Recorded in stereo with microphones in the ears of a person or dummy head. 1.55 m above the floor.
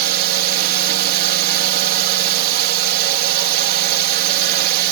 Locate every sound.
0.0 s a drone: 45° right (ahead or behind)